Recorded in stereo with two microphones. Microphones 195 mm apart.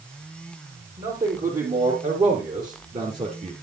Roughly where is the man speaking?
Right.